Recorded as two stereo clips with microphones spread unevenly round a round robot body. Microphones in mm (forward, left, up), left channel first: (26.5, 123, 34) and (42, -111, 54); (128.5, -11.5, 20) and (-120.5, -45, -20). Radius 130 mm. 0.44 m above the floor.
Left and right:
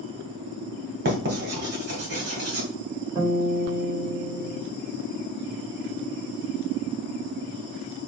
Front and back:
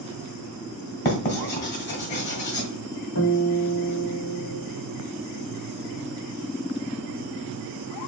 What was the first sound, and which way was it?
Writing, 40° right.